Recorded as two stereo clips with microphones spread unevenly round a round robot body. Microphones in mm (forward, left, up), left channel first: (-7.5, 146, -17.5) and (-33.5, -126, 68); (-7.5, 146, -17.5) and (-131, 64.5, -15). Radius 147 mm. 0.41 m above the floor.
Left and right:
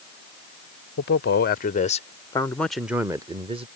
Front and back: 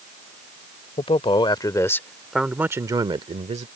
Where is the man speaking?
70° left; by 3.7 s 175° right.